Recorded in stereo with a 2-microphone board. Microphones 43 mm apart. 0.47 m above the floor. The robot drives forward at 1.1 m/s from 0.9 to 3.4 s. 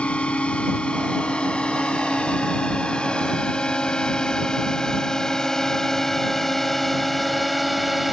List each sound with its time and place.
0.0 s a drone: 25° left (ahead or behind); by 8.1 s 5° right (ahead or behind)